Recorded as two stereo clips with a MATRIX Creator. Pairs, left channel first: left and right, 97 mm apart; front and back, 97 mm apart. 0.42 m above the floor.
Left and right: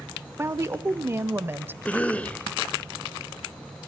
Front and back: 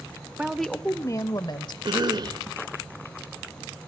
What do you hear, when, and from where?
0.4 s a woman speaking: 115° right, 0.8 m; by 1.8 s 25° right, 1.5 m
1.9 s a cough: 160° left, 1.3 m